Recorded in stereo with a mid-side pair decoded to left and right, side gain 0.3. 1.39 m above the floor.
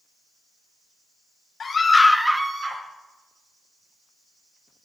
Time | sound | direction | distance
1.6 | a scream | 60° left | 0.9 m